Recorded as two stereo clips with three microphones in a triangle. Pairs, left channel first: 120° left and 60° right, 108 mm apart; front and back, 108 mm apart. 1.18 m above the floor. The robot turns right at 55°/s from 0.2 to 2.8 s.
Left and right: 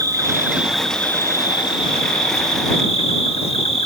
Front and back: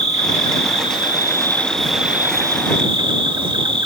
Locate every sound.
0.0 s an insect: straight ahead; by 3.9 s 140° left